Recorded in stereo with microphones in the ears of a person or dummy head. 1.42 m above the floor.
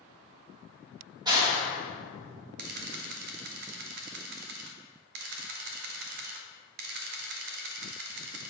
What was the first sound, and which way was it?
A clap, 25° right (ahead or behind).